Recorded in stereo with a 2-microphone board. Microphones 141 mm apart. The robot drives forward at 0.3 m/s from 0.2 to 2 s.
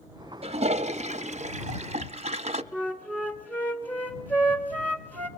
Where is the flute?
10° left (ahead or behind), 1.2 m.